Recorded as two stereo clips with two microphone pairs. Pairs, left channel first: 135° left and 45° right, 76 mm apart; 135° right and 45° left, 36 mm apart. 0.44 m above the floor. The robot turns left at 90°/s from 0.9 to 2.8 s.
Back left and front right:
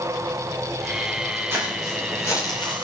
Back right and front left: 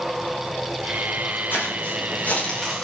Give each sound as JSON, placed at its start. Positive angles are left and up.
{"t": 1.5, "sound": "footsteps", "azimuth_deg": -105, "distance_m": 8.5}